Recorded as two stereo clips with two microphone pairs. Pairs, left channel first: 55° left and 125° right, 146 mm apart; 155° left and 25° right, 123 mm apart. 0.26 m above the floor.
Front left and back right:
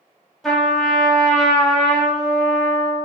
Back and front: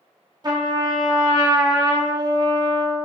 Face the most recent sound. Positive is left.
turn(degrees=-30)